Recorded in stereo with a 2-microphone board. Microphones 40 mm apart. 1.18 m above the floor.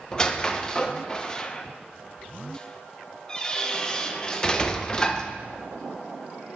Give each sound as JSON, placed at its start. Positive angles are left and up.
{"t": 0.1, "sound": "a squeak", "side_deg": 20, "distance_m": 0.5}